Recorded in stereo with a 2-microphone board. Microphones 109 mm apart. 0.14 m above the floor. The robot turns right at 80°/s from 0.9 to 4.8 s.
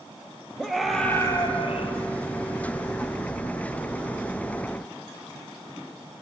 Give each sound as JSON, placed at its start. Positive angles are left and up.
{"t": 0.6, "sound": "a scream", "azimuth_deg": 0, "distance_m": 3.0}